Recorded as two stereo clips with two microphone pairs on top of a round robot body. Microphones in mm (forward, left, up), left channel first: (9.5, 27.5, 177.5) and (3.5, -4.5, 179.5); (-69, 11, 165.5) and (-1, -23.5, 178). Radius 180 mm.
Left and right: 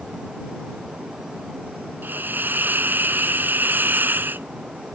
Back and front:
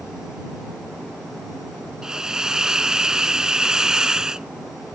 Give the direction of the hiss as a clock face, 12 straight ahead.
4 o'clock.